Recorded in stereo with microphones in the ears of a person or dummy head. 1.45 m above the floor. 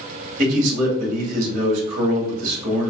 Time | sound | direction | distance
0.4 | a man speaking | 50° right (ahead or behind) | 2 m